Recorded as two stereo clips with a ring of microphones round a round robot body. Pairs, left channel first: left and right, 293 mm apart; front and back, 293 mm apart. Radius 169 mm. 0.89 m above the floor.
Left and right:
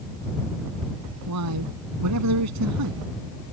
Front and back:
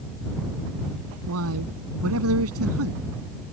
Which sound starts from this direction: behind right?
A man speaking, at 1.3 s.